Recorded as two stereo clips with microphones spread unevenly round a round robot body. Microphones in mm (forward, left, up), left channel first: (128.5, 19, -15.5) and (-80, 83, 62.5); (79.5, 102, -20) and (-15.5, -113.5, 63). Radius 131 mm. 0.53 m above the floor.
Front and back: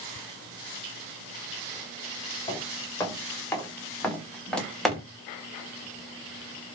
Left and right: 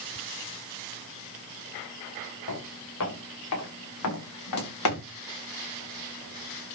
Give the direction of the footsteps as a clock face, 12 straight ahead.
10 o'clock.